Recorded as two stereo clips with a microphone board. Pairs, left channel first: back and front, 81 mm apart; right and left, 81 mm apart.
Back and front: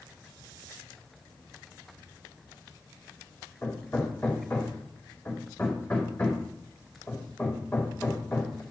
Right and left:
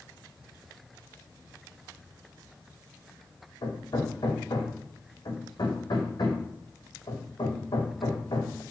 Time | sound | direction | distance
3.6 | hammering | 105° right | 2.5 m